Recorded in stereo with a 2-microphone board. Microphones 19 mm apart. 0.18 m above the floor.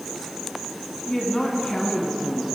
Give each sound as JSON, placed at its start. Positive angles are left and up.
{"t": 1.1, "sound": "a woman speaking", "side_deg": 15, "distance_m": 1.5}